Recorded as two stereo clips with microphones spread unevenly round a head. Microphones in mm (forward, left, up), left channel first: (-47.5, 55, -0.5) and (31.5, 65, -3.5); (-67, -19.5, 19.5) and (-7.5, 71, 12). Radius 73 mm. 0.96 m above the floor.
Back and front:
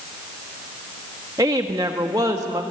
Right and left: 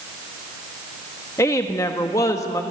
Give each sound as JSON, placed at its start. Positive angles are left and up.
{"t": 1.4, "sound": "a woman speaking", "azimuth_deg": -55, "distance_m": 1.5}